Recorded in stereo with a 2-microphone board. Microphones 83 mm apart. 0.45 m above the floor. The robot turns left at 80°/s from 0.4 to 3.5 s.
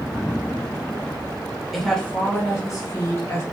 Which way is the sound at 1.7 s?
Straight behind.